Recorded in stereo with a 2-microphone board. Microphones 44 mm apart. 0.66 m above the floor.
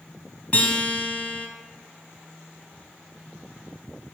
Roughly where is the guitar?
Left.